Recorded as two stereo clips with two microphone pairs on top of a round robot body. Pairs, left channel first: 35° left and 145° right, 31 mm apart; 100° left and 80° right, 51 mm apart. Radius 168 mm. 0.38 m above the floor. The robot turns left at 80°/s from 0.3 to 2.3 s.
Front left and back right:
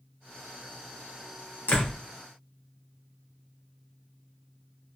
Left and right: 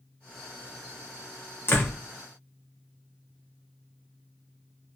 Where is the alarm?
I don't hear an alarm.